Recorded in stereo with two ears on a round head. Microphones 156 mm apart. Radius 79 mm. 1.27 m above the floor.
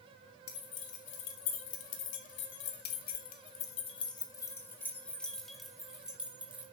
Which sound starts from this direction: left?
Keys jangling, at 0.5 s.